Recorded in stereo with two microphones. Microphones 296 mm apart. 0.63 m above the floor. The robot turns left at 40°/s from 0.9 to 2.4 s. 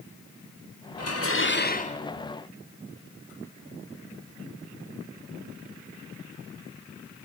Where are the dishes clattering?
60° left, 1.7 m; by 2.0 s 20° left, 1.7 m.